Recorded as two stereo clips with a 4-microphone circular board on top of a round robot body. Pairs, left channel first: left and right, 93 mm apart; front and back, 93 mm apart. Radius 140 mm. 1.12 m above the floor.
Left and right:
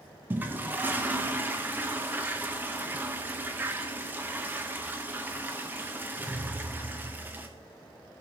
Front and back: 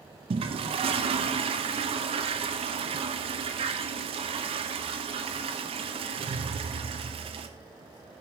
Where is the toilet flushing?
160° right, 0.6 m.